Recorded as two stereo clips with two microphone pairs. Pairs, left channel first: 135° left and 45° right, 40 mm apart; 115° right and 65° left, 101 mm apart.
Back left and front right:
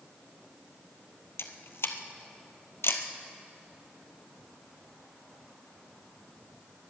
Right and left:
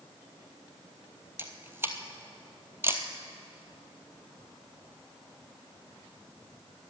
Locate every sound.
1.4 s a camera shutter: 130° left, 1.1 m